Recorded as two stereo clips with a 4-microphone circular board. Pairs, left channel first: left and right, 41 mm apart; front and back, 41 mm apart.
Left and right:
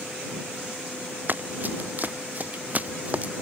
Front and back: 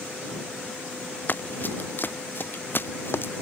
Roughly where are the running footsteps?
Ahead right.